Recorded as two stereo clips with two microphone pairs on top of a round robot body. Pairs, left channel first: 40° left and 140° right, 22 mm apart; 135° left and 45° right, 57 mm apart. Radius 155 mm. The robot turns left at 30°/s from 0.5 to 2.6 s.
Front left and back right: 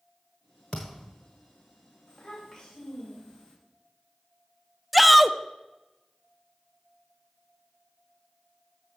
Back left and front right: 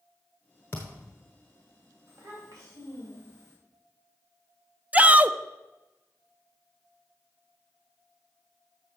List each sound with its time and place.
0.7 s a thud: 85° left, 0.9 m; by 1.2 s 70° left, 0.9 m
2.1 s a child speaking: 20° right, 2.5 m; by 3.5 s 35° right, 2.5 m
4.9 s a shout: 55° right, 0.6 m